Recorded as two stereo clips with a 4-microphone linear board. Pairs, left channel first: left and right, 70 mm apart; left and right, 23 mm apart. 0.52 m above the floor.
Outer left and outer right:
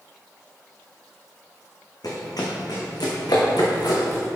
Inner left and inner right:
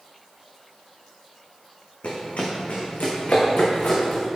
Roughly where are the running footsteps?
Left.